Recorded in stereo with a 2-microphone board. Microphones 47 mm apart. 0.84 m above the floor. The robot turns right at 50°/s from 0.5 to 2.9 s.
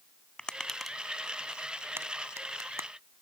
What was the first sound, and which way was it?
Tapping, 15° left (ahead or behind).